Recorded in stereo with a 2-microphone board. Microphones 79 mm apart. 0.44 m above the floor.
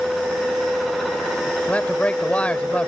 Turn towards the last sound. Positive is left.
turn(degrees=15)  # may be behind; listen again after turning